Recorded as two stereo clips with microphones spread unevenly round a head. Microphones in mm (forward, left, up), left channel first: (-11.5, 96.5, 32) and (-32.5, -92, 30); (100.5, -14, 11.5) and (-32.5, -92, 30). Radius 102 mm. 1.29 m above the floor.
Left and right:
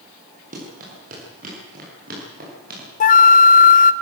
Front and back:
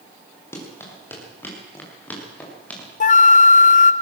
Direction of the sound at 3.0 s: 45° left.